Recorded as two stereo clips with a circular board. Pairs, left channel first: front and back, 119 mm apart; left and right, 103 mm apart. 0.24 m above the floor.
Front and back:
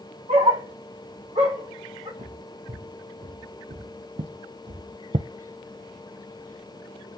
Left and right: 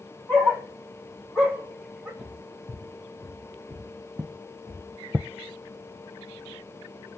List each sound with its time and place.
0.3 s a dog barking: 165° left, 3 m; by 2.1 s 165° right, 3 m
2.2 s footsteps: straight behind, 2 m; by 5.3 s 175° right, 0.5 m